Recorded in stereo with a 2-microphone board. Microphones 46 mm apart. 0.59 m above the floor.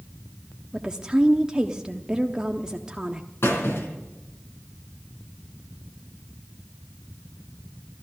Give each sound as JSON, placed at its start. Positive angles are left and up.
{"t": 0.7, "sound": "a woman speaking", "side_deg": -20, "distance_m": 0.7}
{"t": 3.4, "sound": "a squeak", "side_deg": 70, "distance_m": 3.5}